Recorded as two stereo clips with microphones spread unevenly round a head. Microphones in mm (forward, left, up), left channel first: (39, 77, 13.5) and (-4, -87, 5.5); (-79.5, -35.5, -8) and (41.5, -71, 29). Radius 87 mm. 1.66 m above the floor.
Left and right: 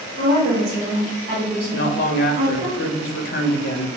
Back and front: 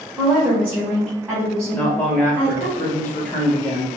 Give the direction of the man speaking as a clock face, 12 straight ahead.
10 o'clock.